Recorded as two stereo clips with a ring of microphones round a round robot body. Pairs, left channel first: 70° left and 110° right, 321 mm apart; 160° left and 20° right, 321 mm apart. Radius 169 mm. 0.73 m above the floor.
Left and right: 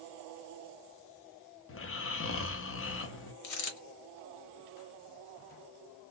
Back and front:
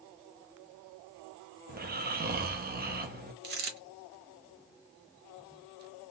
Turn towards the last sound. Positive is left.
turn(degrees=35)